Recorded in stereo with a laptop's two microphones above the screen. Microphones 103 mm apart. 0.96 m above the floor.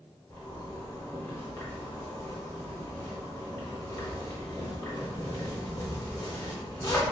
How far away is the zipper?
About 0.8 m.